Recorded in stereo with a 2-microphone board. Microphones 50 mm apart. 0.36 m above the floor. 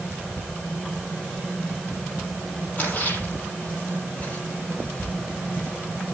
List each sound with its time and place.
2.8 s a splash: 30° left (ahead or behind), 7 m